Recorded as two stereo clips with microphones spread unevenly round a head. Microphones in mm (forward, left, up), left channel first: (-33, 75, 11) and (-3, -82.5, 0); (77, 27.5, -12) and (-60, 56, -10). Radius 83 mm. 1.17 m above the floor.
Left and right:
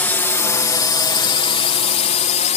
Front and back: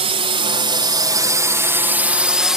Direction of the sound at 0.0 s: 175° left.